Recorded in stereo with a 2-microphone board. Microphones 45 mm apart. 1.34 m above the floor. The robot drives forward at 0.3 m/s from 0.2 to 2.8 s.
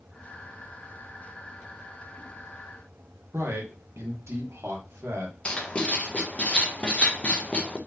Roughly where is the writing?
Left.